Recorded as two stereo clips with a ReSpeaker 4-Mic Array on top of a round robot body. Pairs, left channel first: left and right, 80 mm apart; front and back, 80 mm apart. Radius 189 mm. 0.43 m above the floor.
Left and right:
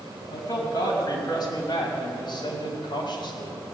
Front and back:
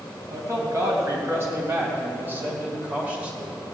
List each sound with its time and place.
0.3 s a man speaking: 130° left, 4.5 m; by 3.6 s 100° left, 3 m